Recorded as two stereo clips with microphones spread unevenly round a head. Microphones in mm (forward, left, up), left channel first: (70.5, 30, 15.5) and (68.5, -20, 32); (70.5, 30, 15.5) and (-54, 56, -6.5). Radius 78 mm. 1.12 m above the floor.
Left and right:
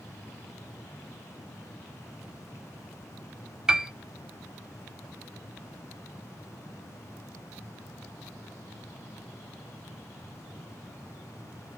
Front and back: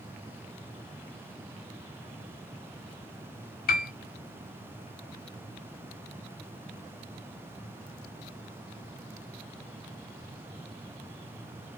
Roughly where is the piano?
Ahead.